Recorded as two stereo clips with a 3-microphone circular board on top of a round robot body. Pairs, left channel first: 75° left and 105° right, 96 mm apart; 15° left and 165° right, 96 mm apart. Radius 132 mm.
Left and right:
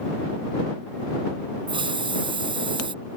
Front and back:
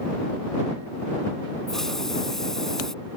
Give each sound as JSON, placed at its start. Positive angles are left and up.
{"t": 1.7, "sound": "a hiss", "azimuth_deg": -70}